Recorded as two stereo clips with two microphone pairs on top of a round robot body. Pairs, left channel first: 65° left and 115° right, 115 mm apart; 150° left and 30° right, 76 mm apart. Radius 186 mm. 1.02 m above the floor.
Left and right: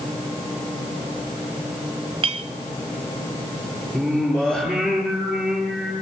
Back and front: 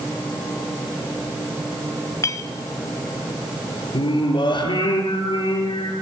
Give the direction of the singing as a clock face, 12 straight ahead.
7 o'clock.